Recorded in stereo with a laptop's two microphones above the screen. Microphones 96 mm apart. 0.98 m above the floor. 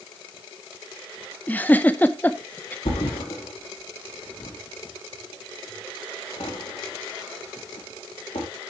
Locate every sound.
1.5 s a giggle: 15° left (ahead or behind), 0.7 m
2.9 s a thud: 75° left (ahead or behind), 4 m